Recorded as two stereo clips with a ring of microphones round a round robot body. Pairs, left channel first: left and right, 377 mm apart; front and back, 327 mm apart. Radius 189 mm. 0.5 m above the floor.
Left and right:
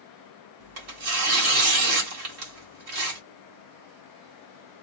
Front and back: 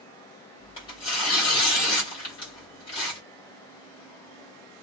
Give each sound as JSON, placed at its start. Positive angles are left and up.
{"t": 0.6, "sound": "tearing paper", "azimuth_deg": -70, "distance_m": 1.3}